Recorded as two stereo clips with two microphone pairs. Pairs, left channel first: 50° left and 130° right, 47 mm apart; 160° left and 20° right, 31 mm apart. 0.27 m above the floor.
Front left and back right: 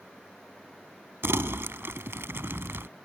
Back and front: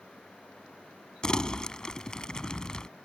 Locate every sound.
1.2 s crumpling: 140° right